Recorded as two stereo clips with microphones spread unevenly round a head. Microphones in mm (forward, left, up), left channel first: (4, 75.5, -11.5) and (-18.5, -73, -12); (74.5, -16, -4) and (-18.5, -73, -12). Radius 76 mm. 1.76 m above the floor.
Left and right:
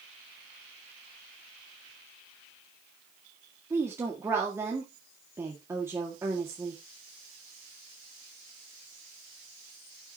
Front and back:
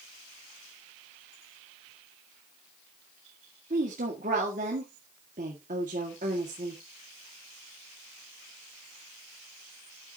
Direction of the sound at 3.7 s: 175° right.